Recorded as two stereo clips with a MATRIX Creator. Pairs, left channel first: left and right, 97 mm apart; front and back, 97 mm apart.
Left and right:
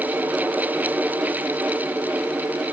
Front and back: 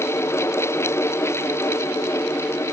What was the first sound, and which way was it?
Only background noise.